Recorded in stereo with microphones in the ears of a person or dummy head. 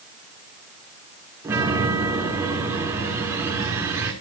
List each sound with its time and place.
1.4 s a chime: 15° right (ahead or behind), 5.5 m